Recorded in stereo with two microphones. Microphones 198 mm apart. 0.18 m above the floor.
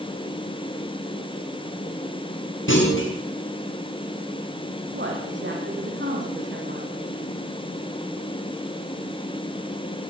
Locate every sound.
2.7 s a clunk: 85° left, 7.5 m
4.9 s a woman speaking: 70° right (ahead or behind), 9 m